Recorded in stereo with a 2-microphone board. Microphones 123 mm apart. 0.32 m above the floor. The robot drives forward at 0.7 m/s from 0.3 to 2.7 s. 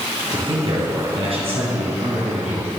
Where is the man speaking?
45° right (ahead or behind), 3 m; by 2.7 s 65° right (ahead or behind), 2 m.